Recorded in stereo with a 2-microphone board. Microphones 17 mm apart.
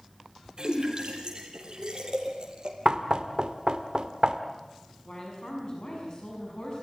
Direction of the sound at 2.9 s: 45° right (ahead or behind).